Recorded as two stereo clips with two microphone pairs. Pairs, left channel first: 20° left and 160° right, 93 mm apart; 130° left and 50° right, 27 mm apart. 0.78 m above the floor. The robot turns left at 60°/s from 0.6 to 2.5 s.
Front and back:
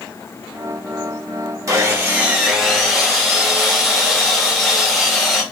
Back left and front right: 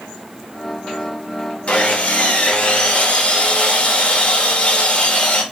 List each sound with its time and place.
1.7 s sawing: 160° left, 0.8 m; by 5.4 s 110° left, 0.8 m